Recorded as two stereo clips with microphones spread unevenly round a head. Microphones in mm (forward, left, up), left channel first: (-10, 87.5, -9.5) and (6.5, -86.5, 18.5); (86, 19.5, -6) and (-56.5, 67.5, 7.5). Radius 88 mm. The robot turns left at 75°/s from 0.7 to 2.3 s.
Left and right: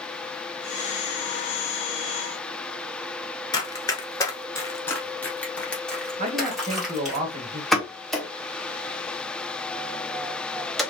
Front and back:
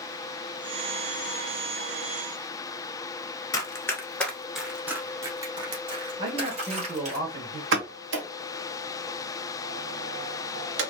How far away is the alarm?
No alarm in this recording.